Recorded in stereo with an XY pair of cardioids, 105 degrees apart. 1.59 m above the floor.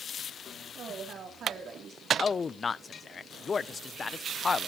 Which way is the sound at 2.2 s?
35° left.